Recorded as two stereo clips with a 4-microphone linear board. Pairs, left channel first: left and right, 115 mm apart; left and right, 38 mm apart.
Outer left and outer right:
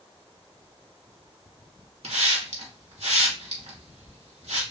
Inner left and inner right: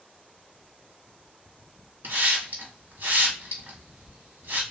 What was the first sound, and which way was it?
A hiss, 75° right (ahead or behind).